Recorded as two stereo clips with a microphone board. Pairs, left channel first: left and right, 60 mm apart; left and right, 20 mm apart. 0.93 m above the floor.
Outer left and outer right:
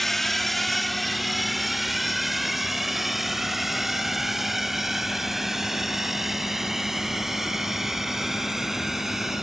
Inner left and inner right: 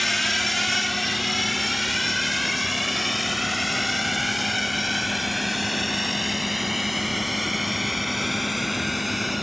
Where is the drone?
5° left (ahead or behind); by 9.4 s 5° right (ahead or behind).